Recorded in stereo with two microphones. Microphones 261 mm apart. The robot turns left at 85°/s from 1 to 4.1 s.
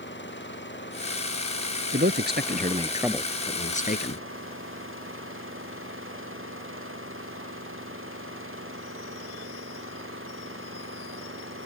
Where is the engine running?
135° left; by 11.7 s 130° right.